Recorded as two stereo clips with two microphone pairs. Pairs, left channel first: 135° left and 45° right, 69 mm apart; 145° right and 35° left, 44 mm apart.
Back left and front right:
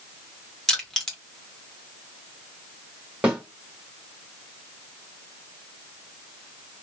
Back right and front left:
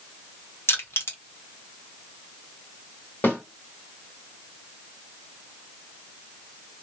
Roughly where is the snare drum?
Behind right.